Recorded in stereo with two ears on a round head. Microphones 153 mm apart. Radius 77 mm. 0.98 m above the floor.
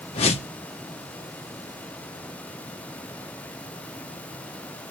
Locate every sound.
0.1 s a whoosh: 35° left (ahead or behind), 1.3 m